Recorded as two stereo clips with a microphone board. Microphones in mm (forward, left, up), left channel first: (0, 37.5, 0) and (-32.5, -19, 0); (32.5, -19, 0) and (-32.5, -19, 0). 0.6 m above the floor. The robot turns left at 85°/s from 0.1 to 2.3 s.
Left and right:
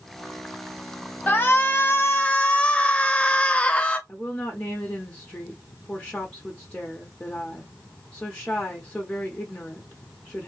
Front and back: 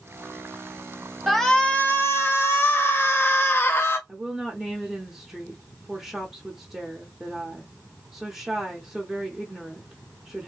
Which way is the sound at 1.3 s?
95° left.